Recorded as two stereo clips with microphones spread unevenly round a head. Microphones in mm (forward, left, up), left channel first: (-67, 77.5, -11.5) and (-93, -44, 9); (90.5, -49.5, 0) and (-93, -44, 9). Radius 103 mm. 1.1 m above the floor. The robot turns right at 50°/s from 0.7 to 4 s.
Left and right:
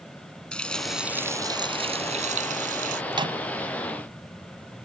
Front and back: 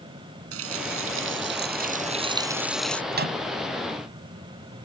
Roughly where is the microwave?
Behind right.